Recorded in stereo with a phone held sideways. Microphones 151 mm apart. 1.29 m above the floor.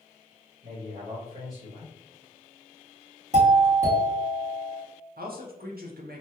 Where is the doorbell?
50° right (ahead or behind), 1.6 m.